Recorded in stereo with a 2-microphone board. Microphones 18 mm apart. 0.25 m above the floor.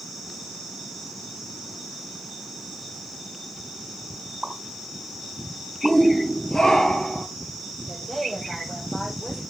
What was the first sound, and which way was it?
A pop, 45° right (ahead or behind).